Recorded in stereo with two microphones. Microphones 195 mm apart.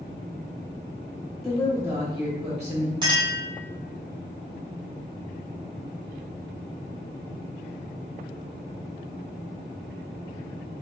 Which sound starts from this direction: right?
A clink, at 3.0 s.